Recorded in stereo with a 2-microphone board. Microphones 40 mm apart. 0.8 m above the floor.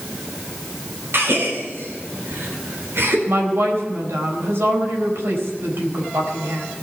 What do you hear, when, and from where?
1.1 s a gasp: 75° right (ahead or behind), 3.5 m
3.3 s a woman speaking: 80° right, 4 m